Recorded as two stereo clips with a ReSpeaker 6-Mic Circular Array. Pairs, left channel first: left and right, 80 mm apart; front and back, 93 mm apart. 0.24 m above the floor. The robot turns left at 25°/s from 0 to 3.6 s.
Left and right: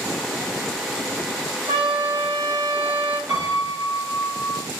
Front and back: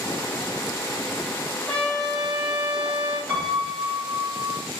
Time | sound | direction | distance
1.7 | a trumpet | 85° right | 2.5 m
3.3 | a piano | 105° right | 2 m